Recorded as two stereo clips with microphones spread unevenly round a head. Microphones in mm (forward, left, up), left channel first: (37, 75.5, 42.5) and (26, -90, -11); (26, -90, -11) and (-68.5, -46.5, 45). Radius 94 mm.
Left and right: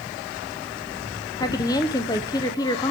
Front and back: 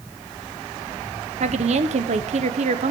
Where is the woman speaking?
155° left, 1.1 m.